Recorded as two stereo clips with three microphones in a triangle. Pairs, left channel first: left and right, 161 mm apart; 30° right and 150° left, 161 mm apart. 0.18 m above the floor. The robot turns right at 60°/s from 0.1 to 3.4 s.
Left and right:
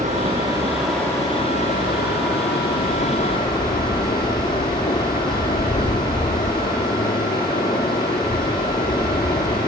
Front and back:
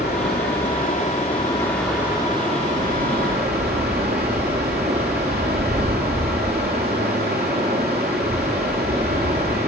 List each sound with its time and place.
0.0 s running water: 45° right, 3.5 m; by 9.7 s 150° left, 3.5 m